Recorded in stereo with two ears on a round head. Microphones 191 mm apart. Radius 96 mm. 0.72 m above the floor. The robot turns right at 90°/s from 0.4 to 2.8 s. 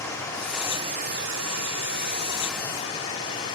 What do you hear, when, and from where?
0.0 s running water: 165° left, 4 m; by 3.6 s 20° left, 4 m